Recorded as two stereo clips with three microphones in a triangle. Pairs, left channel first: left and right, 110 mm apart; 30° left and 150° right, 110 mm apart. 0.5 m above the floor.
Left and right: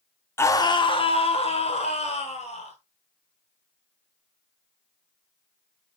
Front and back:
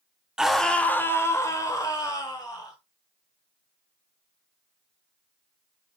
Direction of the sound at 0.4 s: 130° left.